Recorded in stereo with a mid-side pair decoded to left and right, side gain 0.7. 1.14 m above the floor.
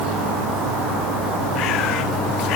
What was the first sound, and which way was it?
Only background noise.